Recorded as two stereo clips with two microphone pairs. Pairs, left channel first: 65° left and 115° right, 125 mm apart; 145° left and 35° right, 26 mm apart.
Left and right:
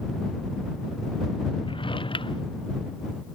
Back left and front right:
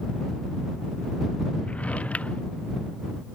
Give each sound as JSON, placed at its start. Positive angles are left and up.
{"t": 1.6, "sound": "a drawer", "azimuth_deg": 110}